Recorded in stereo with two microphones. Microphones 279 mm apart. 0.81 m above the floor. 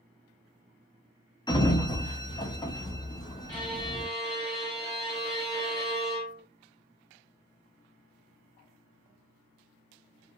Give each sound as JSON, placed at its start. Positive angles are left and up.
{"t": 1.5, "sound": "a sliding door", "side_deg": 15, "distance_m": 0.5}
{"t": 3.5, "sound": "a violin", "side_deg": 35, "distance_m": 2.0}